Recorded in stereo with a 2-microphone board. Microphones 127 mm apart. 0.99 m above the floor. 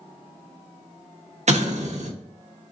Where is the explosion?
65° right (ahead or behind), 0.7 m.